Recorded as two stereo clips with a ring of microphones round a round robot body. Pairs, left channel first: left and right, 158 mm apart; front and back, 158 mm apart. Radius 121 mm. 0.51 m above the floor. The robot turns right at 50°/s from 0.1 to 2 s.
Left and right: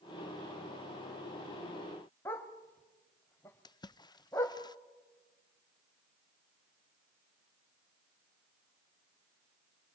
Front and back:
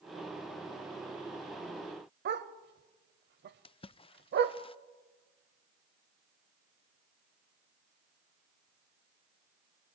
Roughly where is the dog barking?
Behind.